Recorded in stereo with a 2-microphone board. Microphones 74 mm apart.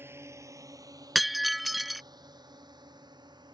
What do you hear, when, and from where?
0.0 s a drone: 35° right (ahead or behind); by 3.5 s 80° right
1.1 s breaking glass: centre (ahead or behind)